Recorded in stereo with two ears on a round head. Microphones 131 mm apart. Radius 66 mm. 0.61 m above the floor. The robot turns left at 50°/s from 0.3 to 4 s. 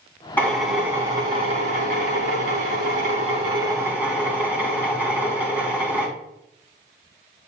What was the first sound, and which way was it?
A drill, 15° left.